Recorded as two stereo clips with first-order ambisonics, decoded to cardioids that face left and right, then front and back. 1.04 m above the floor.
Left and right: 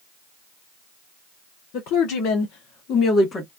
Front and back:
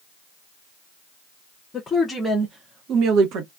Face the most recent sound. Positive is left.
turn(degrees=160)